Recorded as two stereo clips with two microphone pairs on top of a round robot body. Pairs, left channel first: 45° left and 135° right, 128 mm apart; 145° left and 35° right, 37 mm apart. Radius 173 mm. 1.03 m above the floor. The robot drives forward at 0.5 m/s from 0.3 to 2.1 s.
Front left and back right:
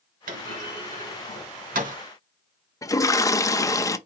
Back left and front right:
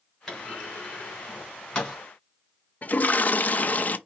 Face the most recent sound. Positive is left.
turn(degrees=105)